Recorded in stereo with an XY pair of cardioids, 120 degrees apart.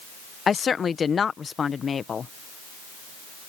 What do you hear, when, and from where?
0.5 s a woman speaking: 35° left